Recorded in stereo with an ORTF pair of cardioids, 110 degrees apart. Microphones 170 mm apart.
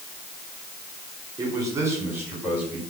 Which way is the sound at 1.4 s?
20° right.